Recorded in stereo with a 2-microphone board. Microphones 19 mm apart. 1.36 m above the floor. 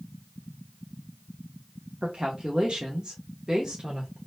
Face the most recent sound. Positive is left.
turn(degrees=-35)  # may be behind; listen again after turning